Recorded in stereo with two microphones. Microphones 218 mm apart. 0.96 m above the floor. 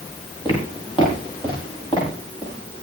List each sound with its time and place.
0.5 s footsteps: 25° left (ahead or behind), 9.5 m; by 2.8 s 20° left (ahead or behind), 11.5 m